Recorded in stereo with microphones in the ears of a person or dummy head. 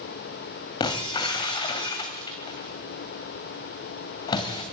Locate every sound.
0.8 s breaking glass: 20° left (ahead or behind), 2.0 m